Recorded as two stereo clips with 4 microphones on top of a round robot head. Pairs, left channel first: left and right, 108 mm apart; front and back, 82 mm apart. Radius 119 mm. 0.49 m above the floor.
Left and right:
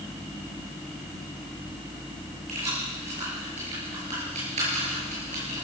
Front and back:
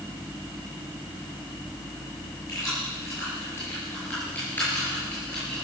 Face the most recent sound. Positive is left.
turn(degrees=-85)